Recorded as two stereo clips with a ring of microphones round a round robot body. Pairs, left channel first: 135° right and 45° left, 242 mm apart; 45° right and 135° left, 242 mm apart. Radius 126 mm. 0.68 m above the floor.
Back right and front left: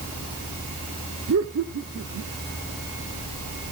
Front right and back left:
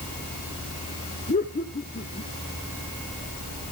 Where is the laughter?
15° left, 1.7 m.